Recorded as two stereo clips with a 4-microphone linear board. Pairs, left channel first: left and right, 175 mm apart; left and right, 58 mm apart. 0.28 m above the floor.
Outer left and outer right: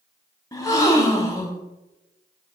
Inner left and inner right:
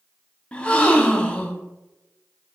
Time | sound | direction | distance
0.5 | a gasp | 20° left (ahead or behind) | 0.7 m